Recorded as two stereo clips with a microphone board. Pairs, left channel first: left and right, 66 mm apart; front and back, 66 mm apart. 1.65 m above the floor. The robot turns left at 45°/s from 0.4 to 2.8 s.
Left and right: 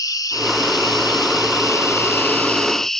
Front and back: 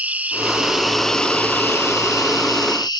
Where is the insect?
115° left; by 3.0 s 5° left.